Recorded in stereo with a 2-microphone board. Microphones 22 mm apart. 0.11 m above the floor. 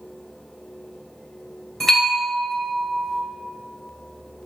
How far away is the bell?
About 1.7 m.